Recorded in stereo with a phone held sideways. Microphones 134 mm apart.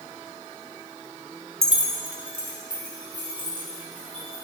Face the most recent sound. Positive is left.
turn(degrees=-80)